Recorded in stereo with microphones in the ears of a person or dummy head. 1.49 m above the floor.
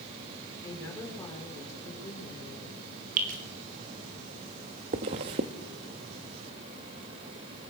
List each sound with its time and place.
0.6 s a woman speaking: 15° left (ahead or behind), 6 m
3.2 s dripping: 45° right (ahead or behind), 4.5 m
4.9 s a zipper: 25° right (ahead or behind), 1.0 m